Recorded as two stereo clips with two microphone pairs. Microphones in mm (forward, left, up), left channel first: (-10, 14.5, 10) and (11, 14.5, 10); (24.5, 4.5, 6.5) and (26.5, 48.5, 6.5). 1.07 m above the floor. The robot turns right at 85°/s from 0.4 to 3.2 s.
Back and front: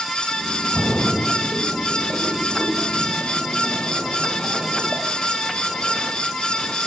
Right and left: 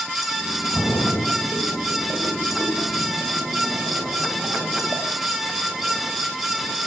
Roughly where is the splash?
Behind right.